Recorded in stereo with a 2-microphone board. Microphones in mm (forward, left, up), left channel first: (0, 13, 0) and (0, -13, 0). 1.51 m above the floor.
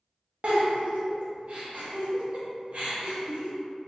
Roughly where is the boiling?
I don't hear boiling.